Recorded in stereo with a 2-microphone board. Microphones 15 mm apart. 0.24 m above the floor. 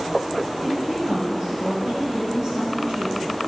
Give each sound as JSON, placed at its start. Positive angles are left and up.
{"t": 0.6, "sound": "a woman speaking", "side_deg": -65, "distance_m": 3.5}